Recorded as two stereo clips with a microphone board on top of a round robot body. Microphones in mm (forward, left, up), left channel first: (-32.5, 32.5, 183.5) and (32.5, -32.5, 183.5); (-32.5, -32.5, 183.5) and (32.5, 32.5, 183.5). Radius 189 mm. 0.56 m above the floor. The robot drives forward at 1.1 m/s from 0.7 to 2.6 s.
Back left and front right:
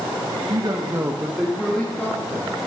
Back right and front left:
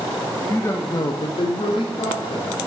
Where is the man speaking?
75° right, 0.9 m; by 2.6 s 160° right, 2 m.